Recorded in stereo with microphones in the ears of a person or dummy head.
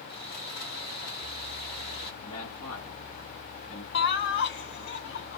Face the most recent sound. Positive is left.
turn(degrees=60)  # may be behind; listen again after turning